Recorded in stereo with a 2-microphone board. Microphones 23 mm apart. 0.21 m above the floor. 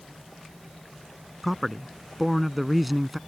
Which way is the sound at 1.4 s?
Centre (ahead or behind).